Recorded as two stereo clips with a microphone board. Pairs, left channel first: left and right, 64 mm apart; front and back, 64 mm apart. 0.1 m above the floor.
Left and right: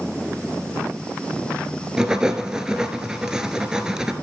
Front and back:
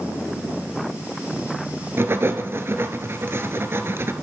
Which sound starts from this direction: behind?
Writing, at 2.0 s.